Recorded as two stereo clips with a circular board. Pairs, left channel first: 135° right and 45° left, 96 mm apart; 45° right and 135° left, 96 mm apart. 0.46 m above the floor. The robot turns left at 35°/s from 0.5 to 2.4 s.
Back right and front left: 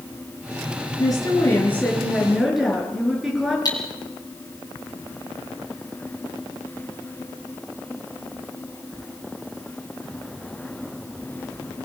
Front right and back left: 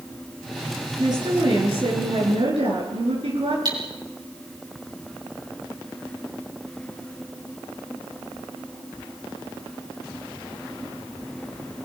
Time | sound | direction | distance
1.0 | a woman speaking | straight behind | 8.5 m
3.6 | cutlery clinking | 175° left | 5.5 m